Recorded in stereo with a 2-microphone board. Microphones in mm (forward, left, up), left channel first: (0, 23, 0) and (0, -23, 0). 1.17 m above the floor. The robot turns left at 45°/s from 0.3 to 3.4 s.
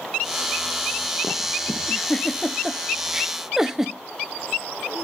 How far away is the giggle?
About 0.6 m.